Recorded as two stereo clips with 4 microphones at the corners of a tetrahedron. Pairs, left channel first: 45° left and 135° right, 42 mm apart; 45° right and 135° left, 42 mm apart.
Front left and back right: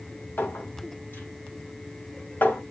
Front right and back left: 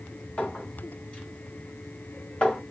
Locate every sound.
0.4 s a clink: 15° left, 2 m